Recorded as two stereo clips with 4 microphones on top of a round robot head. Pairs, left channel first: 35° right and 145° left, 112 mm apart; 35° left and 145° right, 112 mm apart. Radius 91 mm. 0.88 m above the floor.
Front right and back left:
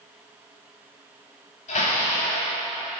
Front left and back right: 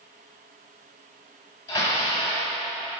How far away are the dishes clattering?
About 4 m.